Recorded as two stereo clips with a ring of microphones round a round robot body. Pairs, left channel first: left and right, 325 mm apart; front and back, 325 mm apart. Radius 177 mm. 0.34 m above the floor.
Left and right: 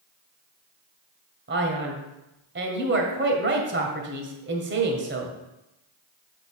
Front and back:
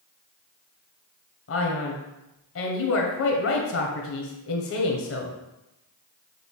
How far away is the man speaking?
About 2.0 m.